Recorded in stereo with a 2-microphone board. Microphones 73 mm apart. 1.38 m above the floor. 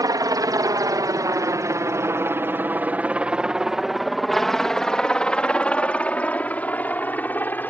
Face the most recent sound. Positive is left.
turn(degrees=25)  # may be behind; listen again after turning